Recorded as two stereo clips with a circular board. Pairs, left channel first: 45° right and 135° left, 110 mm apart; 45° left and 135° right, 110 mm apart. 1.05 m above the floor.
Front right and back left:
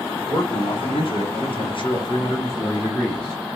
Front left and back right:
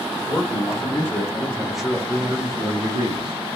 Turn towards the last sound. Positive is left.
turn(degrees=-130)